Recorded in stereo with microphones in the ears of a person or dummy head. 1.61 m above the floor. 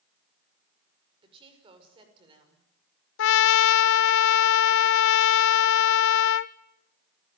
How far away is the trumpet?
About 0.7 m.